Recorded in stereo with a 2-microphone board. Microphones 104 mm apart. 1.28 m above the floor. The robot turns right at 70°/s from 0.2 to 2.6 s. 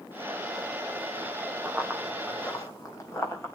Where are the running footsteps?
15° right (ahead or behind), 3 m; by 3.6 s 25° left (ahead or behind), 3.5 m.